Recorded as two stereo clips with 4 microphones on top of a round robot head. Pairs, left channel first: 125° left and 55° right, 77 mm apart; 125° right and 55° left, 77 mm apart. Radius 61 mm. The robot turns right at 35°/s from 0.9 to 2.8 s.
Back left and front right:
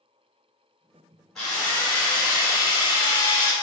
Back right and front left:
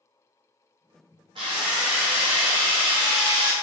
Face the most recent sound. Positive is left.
turn(degrees=90)